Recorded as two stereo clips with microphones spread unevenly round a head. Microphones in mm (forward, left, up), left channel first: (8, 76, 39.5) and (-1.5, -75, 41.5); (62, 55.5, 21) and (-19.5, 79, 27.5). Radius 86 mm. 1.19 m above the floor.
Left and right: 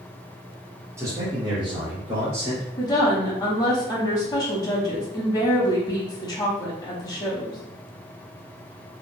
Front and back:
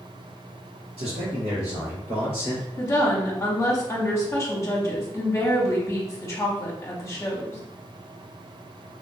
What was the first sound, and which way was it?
A man speaking, 170° right.